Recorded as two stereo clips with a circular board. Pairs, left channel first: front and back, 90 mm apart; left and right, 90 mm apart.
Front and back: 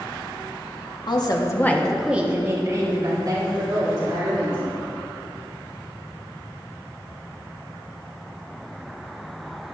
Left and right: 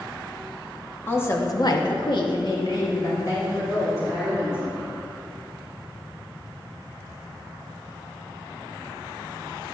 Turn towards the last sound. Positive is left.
turn(degrees=145)